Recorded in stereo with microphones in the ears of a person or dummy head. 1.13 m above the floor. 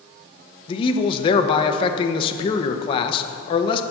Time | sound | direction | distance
0.7 | a man speaking | 35° left (ahead or behind) | 0.8 m